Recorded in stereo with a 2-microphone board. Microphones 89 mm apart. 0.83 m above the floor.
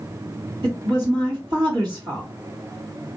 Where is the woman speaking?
55° right (ahead or behind), 1.8 m.